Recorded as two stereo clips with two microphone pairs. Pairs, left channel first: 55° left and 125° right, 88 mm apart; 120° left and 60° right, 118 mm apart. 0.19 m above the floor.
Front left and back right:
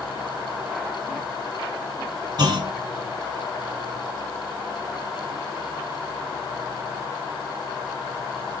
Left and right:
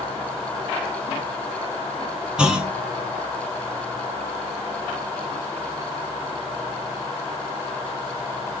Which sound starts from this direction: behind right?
A clunk, at 2.4 s.